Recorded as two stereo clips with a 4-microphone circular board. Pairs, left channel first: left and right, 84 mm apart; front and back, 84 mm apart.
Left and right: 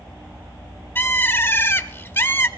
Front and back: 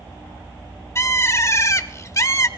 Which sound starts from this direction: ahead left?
A bird, at 0.9 s.